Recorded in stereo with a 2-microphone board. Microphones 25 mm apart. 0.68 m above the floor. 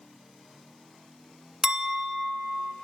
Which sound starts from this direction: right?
A clink, at 1.6 s.